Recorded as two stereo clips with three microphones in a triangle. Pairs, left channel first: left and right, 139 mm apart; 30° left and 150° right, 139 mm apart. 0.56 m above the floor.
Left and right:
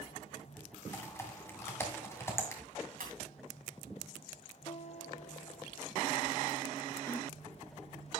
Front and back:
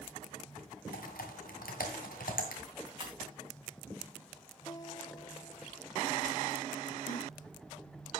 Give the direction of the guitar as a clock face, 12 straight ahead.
9 o'clock.